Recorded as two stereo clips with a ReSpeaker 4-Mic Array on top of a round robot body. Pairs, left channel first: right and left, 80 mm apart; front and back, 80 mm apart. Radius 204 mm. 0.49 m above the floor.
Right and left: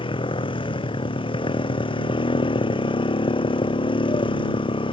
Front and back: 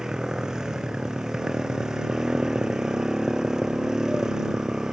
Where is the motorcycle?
95° right.